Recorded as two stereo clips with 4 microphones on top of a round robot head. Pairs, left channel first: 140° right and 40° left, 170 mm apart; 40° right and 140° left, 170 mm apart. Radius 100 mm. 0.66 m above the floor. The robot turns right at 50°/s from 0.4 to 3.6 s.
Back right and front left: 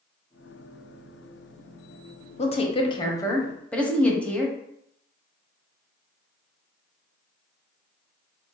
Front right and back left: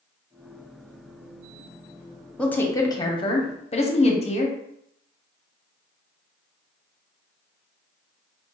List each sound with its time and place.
2.4 s a woman speaking: 120° right, 0.9 m; by 4.5 s 60° right, 0.9 m